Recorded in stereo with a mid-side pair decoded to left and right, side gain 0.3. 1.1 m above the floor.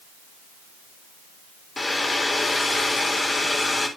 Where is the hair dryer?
40° left, 3 m.